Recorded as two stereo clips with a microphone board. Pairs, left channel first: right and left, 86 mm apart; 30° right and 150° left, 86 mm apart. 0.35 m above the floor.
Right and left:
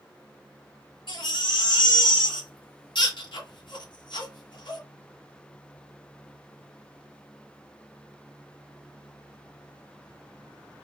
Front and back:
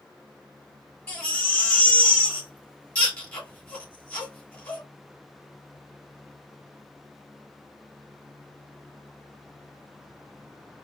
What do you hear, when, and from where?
1.1 s a baby crying: 100° right, 1.9 m